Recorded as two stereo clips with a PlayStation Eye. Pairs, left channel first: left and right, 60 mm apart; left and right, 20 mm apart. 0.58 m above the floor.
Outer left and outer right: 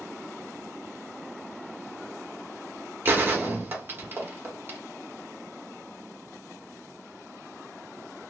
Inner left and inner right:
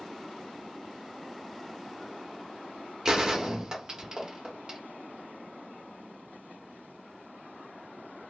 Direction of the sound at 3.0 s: 35° right (ahead or behind).